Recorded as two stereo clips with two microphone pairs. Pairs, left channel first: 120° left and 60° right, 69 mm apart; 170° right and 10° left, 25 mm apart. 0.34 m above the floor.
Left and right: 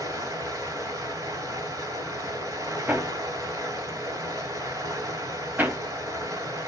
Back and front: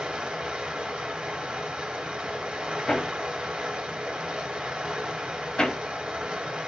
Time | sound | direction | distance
0.0 | running water | 30° right | 2 m
2.9 | hammering | 115° right | 0.9 m